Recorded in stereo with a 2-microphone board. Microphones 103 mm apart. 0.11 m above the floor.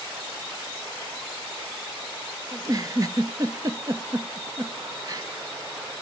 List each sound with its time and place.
2.5 s a giggle: 40° right (ahead or behind), 0.8 m